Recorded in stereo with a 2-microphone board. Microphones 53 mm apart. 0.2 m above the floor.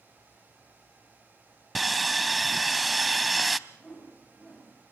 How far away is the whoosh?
About 7.5 m.